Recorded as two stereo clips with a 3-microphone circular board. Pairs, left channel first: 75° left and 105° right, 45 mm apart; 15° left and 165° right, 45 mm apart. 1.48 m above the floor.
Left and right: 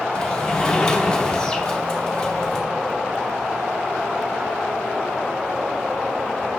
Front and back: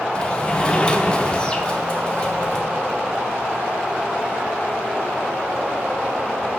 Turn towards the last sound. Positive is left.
turn(degrees=35)